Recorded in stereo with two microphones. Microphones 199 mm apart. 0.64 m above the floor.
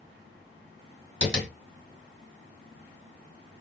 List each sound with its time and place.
1.2 s tapping: 55° left (ahead or behind), 2.5 m